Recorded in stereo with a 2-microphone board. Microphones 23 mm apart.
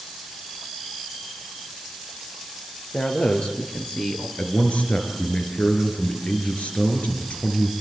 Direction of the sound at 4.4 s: 75° left (ahead or behind).